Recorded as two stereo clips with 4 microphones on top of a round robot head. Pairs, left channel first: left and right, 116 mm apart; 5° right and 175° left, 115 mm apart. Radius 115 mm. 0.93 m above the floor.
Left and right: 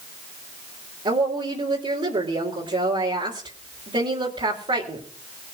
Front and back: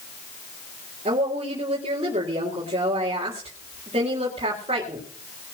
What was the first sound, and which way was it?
A woman speaking, 135° right.